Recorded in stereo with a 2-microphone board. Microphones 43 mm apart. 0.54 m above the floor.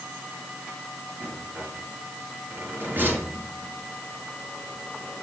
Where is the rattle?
50° right (ahead or behind), 4.5 m.